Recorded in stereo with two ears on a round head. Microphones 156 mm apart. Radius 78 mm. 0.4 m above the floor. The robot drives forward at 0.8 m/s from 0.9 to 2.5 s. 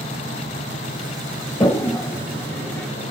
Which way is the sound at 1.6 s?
20° left (ahead or behind).